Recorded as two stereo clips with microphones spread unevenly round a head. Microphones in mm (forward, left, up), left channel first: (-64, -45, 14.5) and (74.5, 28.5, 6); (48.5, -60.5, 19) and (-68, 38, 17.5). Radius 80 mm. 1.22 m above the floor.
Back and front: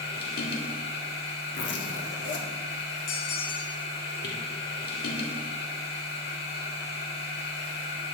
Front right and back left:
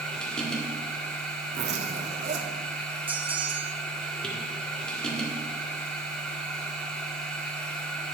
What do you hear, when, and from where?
0.0 s a machine running: 125° right, 1.9 m
1.5 s a zipper: 170° right, 1.6 m
3.1 s a bell: 140° right, 1.3 m